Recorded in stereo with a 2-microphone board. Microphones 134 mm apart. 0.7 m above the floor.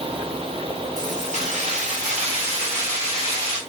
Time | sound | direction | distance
1.0 | keys jangling | 65° right (ahead or behind) | 3 m